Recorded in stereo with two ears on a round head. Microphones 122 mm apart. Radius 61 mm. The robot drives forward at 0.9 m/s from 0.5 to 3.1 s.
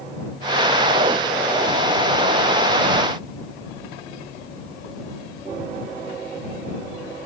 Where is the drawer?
I don't hear a drawer.